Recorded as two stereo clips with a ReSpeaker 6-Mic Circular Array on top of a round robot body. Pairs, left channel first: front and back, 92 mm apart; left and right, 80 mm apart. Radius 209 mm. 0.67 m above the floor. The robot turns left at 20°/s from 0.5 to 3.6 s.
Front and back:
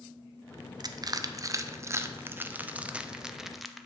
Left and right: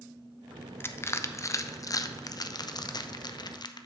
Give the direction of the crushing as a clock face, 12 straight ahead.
7 o'clock.